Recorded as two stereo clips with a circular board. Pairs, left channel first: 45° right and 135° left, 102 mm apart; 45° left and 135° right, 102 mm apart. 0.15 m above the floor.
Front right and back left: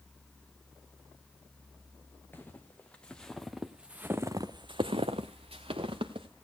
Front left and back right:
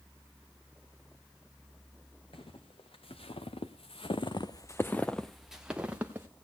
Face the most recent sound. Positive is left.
turn(degrees=155)